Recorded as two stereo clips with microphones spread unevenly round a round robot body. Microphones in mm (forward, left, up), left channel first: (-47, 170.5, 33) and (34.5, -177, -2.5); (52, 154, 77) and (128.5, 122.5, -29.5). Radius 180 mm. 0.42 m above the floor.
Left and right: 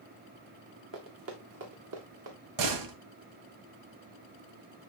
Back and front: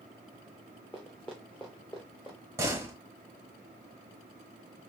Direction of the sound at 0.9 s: 130° right.